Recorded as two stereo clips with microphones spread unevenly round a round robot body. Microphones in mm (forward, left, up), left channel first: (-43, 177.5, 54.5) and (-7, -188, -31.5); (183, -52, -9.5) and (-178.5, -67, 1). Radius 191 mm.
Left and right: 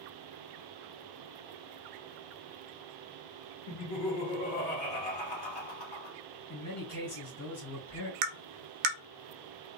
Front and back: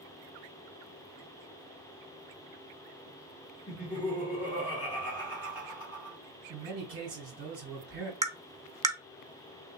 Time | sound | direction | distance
3.7 | laughter | 80° left | 1.8 m
6.5 | a man speaking | 150° left | 2 m
8.2 | tapping | 100° right | 0.7 m